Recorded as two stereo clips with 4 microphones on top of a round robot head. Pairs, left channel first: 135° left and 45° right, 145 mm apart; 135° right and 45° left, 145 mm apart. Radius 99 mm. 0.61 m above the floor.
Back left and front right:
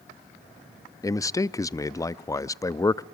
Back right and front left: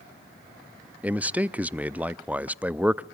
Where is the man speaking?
115° left, 0.5 m.